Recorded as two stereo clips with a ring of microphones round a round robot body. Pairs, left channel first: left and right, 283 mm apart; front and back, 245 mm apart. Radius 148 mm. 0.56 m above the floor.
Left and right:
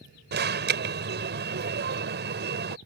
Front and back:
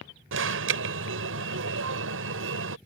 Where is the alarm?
140° right.